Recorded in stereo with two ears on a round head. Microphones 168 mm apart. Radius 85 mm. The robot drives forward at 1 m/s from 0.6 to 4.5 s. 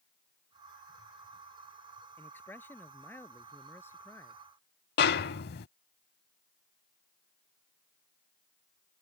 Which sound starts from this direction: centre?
A man speaking, at 2.2 s.